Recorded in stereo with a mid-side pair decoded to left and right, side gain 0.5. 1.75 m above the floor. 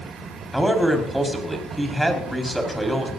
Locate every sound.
0.5 s a man speaking: 5° right, 5.5 m